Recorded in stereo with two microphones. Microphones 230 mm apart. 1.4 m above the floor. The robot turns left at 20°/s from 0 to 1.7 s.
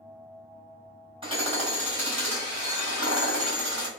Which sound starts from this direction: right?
Hammering, at 1.2 s.